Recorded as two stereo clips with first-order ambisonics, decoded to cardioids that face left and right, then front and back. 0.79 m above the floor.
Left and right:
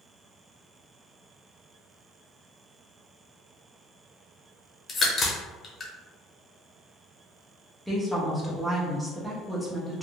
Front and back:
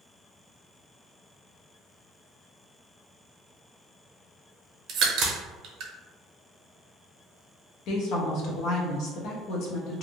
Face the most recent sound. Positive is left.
turn(degrees=-5)